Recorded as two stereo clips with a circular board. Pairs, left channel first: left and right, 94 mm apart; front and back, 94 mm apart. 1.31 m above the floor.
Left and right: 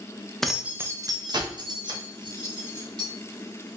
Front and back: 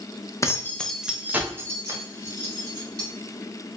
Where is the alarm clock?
No alarm clock in this recording.